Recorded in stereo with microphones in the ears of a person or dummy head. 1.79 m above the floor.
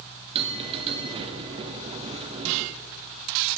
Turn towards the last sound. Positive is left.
turn(degrees=-30)  # may be behind; listen again after turning